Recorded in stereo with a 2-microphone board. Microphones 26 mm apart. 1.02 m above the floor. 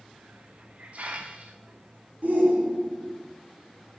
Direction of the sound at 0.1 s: 55° right (ahead or behind).